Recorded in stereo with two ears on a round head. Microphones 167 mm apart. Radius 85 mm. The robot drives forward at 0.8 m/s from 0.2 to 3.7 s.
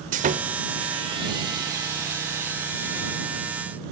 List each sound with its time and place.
0.1 s sawing: 45° right (ahead or behind), 1.0 m; by 3.2 s 15° right (ahead or behind), 3 m